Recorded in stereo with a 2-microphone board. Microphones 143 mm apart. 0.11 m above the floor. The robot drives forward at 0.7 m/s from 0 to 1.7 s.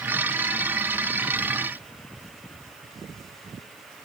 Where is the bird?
I don't hear a bird.